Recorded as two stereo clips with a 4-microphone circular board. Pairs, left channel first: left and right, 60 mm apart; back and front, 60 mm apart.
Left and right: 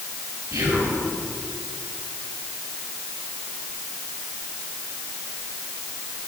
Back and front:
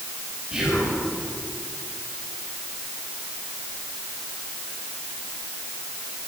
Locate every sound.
0.5 s whispering: 75° right, 4.5 m